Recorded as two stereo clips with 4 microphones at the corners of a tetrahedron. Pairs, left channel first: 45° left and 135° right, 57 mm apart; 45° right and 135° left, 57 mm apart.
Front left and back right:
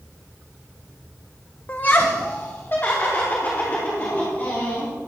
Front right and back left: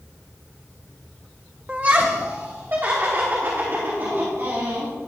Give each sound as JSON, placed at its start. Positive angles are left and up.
{"t": 1.7, "sound": "laughter", "azimuth_deg": 85, "distance_m": 0.6}